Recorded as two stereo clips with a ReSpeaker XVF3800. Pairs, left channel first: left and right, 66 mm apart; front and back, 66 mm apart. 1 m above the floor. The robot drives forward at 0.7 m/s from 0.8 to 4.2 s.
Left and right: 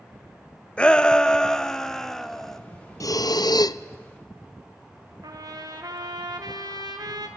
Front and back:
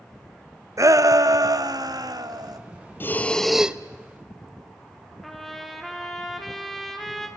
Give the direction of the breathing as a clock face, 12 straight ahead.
10 o'clock.